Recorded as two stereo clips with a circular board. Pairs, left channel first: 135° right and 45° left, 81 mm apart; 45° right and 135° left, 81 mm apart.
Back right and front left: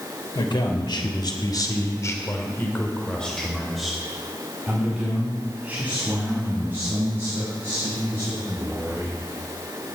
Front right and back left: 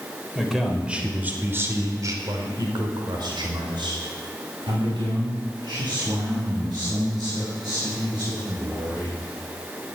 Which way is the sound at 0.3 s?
135° right.